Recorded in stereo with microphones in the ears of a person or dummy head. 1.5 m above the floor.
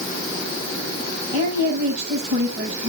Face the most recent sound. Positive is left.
turn(degrees=-35)  # may be behind; listen again after turning